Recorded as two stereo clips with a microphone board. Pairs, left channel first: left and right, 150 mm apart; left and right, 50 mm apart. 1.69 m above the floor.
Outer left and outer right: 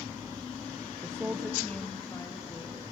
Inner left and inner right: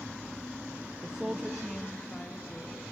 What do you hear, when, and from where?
1.0 s a woman speaking: 25° right (ahead or behind), 0.6 m; by 2.8 s 25° left (ahead or behind), 1.8 m